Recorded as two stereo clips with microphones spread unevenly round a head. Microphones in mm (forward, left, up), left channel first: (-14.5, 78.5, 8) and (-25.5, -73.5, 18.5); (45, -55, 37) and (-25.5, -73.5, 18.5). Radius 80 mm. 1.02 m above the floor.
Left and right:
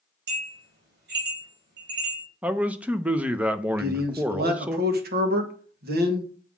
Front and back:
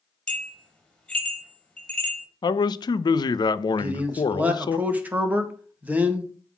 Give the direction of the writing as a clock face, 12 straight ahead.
I don't hear writing.